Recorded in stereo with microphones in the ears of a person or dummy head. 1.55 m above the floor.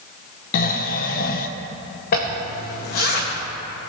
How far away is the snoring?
About 0.9 m.